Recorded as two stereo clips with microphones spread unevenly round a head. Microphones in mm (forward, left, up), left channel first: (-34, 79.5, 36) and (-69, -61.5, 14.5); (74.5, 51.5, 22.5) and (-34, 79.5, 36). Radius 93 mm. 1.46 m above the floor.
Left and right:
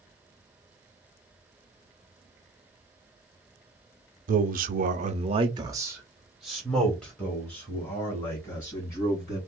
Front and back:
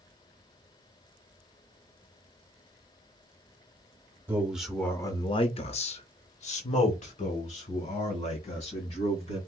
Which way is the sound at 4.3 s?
120° right.